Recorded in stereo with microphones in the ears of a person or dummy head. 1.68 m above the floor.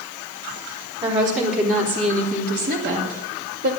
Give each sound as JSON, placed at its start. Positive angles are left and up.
{"t": 1.0, "sound": "a woman speaking", "side_deg": -25, "distance_m": 3.0}